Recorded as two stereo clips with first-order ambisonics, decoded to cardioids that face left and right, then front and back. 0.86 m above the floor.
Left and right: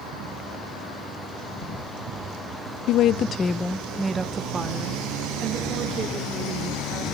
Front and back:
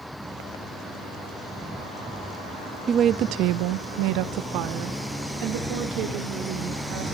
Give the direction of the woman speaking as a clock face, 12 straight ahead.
8 o'clock.